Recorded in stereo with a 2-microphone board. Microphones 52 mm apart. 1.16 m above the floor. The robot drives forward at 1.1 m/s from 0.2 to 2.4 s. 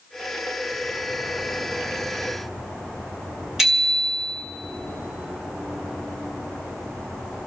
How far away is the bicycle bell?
About 2.5 m.